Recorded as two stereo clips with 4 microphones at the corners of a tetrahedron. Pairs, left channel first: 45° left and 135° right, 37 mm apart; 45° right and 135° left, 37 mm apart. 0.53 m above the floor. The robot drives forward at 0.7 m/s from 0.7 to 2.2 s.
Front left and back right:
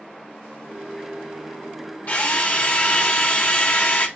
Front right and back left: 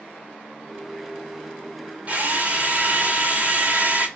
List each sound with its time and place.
2.1 s a drill: 85° left, 1.0 m; by 4.1 s 90° left, 1.0 m